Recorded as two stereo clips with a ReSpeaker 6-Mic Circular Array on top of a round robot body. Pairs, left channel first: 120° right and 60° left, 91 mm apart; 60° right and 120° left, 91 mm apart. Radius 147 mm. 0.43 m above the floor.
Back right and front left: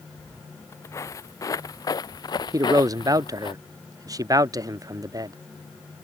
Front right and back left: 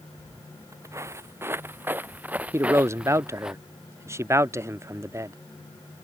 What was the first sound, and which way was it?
Footsteps, 175° left.